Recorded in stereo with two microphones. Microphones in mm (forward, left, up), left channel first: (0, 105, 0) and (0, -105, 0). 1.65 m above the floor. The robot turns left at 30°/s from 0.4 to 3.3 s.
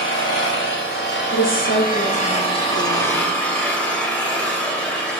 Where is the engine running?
95° left, 3.5 m; by 5.2 s 5° left, 3.5 m.